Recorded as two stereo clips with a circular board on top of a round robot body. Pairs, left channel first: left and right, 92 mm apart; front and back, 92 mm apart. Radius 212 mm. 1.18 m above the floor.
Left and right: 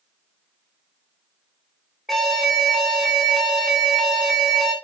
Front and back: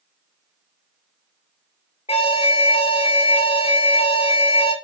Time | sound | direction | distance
2.1 | an alarm | straight ahead | 2.5 m